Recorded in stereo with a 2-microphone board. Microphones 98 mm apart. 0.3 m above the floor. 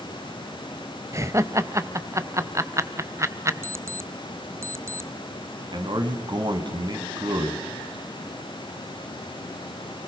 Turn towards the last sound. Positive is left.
turn(degrees=-50)  # may be behind; listen again after turning